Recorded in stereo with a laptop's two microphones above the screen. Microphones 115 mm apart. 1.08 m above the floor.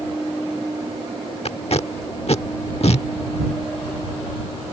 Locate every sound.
1.4 s tape being pulled: 65° left (ahead or behind)